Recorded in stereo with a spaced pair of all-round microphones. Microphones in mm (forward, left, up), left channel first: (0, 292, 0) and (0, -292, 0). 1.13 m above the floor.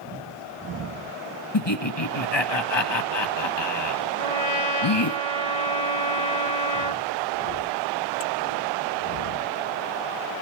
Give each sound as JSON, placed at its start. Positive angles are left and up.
{"t": 1.5, "sound": "laughter", "side_deg": 45, "distance_m": 2.0}
{"t": 4.2, "sound": "a trumpet", "side_deg": -75, "distance_m": 2.0}